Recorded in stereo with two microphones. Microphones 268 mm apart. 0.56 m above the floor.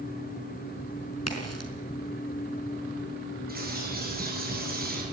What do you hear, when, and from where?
1.3 s a crack: 65° left (ahead or behind), 4.5 m
3.5 s a bird: 35° right (ahead or behind), 8.5 m